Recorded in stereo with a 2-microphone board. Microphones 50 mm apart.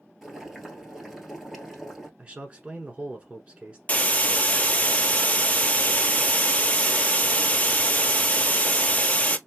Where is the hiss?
30° left (ahead or behind), 0.6 m.